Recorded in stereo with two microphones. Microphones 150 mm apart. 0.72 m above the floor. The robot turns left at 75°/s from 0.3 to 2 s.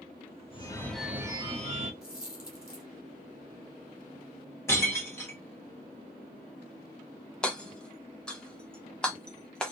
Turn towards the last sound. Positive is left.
turn(degrees=5)  # may be behind; listen again after turning